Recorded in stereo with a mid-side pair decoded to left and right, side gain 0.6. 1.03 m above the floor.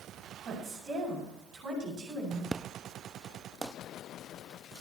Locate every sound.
0.4 s a woman speaking: 50° right, 7.5 m
2.5 s an explosion: 20° right, 0.5 m